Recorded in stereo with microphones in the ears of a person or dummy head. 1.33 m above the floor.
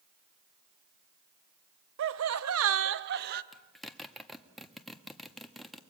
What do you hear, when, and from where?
2.0 s laughter: 60° right (ahead or behind), 0.8 m; by 3.4 s 50° right (ahead or behind), 1.4 m
3.5 s a zipper: centre (ahead or behind), 1.3 m